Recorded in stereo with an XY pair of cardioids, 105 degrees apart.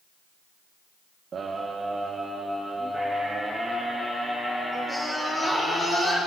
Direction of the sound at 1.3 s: 45° right.